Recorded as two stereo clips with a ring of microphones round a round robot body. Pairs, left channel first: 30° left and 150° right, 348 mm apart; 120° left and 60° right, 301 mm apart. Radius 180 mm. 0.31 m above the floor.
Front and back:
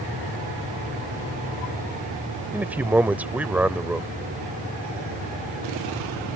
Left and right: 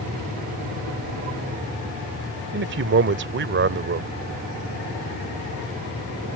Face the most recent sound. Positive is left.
turn(degrees=-65)